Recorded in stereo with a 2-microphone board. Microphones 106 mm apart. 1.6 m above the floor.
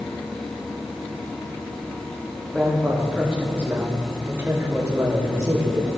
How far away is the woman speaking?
About 2.5 m.